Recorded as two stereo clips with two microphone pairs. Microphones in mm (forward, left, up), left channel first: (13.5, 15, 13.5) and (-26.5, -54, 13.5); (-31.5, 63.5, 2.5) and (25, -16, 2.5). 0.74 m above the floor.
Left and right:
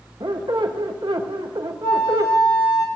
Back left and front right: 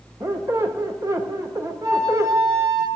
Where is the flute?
Straight ahead, 3.5 m.